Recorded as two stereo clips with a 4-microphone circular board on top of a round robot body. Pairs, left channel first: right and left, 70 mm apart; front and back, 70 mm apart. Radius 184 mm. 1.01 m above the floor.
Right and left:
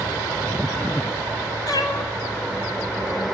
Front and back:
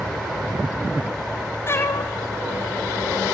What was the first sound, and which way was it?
A cat meowing, 55° right.